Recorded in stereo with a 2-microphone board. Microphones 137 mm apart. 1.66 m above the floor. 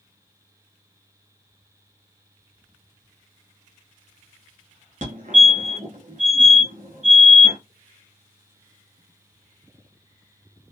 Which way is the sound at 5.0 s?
60° right (ahead or behind).